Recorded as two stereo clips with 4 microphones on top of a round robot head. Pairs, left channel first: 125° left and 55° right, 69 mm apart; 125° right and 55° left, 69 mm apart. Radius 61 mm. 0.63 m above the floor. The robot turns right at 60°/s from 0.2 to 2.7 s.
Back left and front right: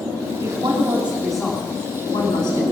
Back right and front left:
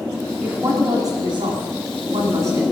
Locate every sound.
0.4 s a woman speaking: 20° right, 4.5 m; by 2.6 s 115° left, 4.5 m